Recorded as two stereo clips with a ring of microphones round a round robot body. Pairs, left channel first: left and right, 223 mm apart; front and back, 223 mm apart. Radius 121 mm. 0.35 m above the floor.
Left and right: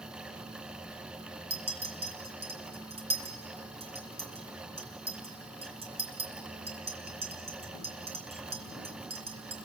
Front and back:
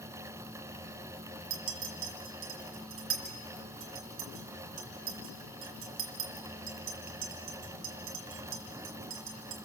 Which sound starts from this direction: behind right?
A clink, at 1.5 s.